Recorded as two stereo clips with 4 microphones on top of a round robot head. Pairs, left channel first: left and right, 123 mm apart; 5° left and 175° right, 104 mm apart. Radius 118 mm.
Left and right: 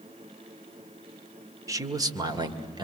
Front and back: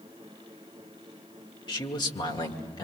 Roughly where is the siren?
I don't hear a siren.